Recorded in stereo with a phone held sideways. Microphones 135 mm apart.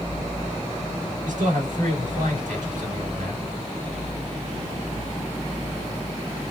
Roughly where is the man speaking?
Right.